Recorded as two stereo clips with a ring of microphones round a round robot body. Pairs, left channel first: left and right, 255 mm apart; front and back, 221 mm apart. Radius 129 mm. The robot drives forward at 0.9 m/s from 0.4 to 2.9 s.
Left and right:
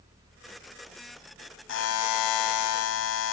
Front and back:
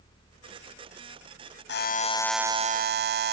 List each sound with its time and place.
1.7 s a buzzer: 40° left, 0.8 m; by 3.3 s 135° left, 0.7 m